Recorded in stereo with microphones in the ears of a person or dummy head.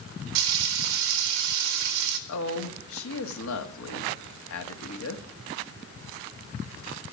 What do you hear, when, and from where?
0.3 s frying: 85° right, 1.5 m
2.3 s a woman speaking: 70° left (ahead or behind), 1.6 m